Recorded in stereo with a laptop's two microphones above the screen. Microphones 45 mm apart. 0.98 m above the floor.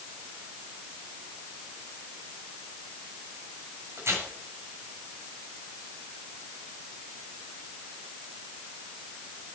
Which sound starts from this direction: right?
Tearing paper, at 4.0 s.